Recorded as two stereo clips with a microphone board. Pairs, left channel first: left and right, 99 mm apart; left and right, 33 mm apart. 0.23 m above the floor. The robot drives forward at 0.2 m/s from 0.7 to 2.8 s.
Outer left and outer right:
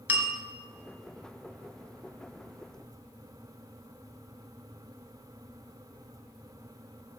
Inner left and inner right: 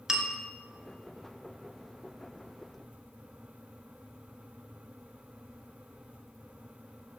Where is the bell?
15° right (ahead or behind), 1.6 m.